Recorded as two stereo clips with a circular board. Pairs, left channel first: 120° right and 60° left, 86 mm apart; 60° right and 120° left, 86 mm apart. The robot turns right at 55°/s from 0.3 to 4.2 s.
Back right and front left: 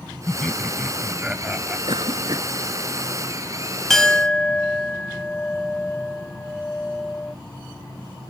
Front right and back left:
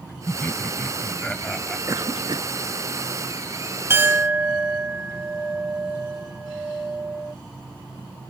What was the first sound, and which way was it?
Laughter, 55° right.